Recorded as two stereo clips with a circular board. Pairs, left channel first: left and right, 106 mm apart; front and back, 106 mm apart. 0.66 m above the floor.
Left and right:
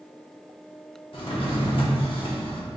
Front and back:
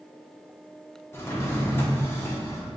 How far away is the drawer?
About 0.7 m.